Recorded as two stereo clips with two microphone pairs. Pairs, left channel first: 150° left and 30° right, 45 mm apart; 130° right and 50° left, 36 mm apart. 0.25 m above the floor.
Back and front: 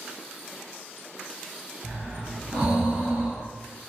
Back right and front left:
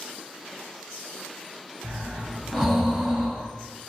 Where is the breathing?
40° right, 1.7 m.